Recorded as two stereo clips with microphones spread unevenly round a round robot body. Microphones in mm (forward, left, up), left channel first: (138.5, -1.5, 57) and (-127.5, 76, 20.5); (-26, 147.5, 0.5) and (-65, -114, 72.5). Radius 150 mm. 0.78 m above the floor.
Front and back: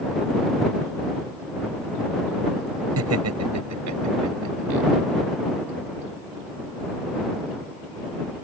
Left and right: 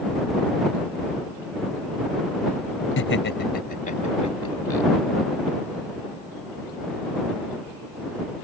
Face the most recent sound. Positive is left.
turn(degrees=160)